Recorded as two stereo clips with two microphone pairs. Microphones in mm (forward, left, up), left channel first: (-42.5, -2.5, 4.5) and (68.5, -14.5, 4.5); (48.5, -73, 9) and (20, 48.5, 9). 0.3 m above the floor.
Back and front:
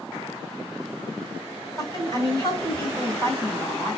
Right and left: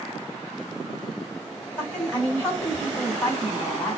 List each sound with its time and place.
1.8 s a woman speaking: 145° right, 2 m